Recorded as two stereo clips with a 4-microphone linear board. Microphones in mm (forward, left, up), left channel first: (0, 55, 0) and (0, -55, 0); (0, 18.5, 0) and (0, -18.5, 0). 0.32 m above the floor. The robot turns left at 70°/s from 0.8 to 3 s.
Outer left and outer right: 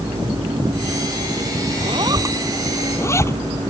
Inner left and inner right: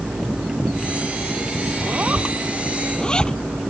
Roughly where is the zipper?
Right.